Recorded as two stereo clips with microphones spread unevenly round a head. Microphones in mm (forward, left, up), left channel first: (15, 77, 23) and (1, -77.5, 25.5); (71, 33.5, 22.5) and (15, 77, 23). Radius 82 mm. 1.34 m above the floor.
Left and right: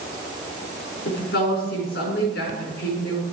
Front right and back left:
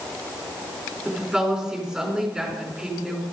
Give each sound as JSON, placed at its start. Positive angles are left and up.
{"t": 1.1, "sound": "a woman speaking", "azimuth_deg": 55, "distance_m": 5.0}